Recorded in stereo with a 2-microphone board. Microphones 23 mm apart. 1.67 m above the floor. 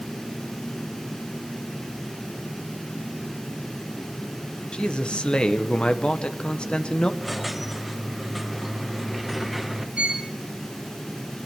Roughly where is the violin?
Right.